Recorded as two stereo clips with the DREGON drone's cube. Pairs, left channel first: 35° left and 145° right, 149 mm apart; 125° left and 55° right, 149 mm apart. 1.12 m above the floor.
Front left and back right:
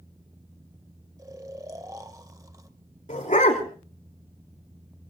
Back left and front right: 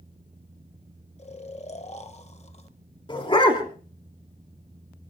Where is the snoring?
155° left, 1.2 m.